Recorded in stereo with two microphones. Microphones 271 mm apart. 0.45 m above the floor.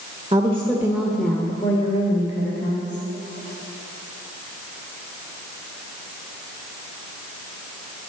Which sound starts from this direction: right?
A woman speaking, at 0.3 s.